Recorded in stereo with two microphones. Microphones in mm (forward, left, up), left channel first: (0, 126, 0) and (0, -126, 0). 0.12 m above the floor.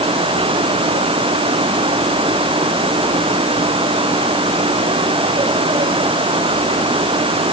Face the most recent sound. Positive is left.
No sound to turn to.